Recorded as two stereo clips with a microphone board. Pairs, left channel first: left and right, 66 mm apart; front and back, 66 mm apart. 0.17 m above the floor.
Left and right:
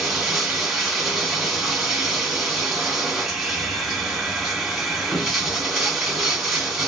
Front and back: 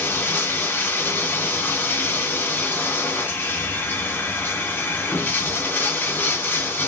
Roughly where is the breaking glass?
No breaking glass in this recording.